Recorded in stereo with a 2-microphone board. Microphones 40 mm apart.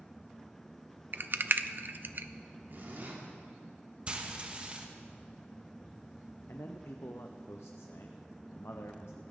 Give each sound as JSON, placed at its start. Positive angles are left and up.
{"t": 1.1, "sound": "a rattle", "side_deg": -50, "distance_m": 0.6}
{"t": 2.7, "sound": "a zipper", "side_deg": -55, "distance_m": 3.5}
{"t": 4.1, "sound": "frying", "side_deg": -25, "distance_m": 1.4}
{"t": 6.5, "sound": "a man speaking", "side_deg": 85, "distance_m": 0.8}